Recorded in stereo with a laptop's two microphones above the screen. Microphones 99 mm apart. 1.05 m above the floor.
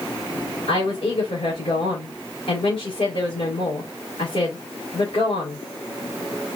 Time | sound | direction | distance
0.7 | a woman speaking | 80° left | 4 m